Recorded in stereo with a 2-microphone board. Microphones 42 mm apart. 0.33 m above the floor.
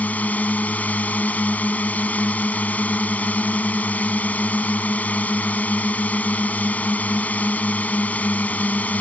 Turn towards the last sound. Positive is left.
turn(degrees=40)  # may be behind; listen again after turning